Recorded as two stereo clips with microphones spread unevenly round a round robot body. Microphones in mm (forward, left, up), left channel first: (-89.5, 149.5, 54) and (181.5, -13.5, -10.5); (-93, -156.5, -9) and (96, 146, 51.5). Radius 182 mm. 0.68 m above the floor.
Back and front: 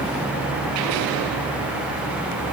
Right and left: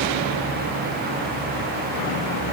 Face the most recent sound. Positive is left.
No sound to turn to.